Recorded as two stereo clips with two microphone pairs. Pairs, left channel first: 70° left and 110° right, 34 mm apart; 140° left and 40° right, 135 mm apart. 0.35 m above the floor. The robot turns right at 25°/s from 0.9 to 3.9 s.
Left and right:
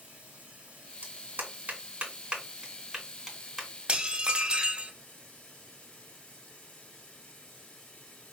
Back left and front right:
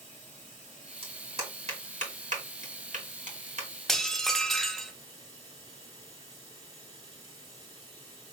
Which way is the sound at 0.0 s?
55° right.